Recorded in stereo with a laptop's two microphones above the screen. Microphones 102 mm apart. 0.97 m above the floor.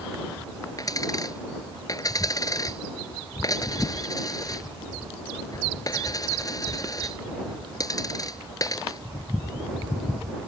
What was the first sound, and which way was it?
A dropped coin, 35° left (ahead or behind).